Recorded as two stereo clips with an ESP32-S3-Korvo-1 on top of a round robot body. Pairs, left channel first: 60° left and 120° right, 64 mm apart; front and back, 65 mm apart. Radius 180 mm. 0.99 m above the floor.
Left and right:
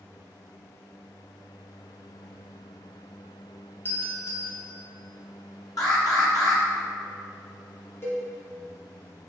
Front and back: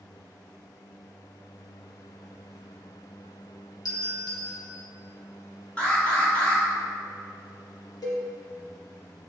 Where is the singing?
I don't hear singing.